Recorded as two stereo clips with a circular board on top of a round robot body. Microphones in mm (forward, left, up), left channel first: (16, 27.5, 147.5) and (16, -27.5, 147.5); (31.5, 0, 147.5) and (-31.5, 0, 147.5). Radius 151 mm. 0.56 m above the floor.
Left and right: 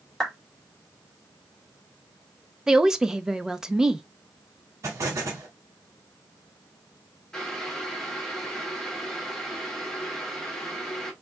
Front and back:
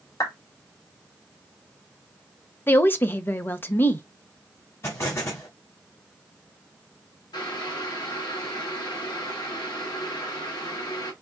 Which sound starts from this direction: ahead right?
An explosion, at 4.8 s.